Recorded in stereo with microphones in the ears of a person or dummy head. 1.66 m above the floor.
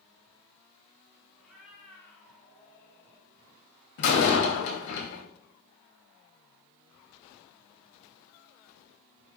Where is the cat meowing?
Centre (ahead or behind), 4.5 m; by 3.3 s 15° left (ahead or behind), 4.5 m.